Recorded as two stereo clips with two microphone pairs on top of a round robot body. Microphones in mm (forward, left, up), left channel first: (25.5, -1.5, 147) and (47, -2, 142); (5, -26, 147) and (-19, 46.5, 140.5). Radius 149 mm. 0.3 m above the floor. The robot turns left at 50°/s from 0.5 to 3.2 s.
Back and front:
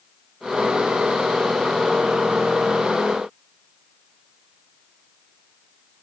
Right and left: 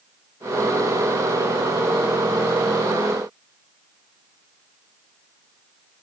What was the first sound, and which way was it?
Only background noise.